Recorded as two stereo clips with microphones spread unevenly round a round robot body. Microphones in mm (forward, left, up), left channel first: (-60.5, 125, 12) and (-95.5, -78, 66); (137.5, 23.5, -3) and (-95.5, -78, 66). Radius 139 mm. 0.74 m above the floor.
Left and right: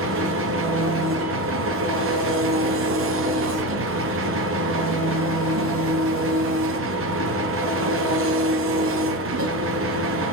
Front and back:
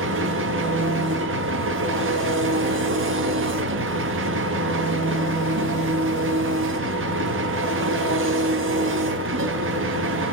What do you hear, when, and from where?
0.0 s an engine running: 110° right, 1.0 m